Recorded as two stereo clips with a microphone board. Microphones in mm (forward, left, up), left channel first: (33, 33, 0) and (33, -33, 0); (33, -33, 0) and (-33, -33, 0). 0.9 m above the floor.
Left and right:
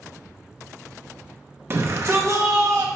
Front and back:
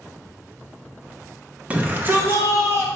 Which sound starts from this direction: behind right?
A shout, at 1.7 s.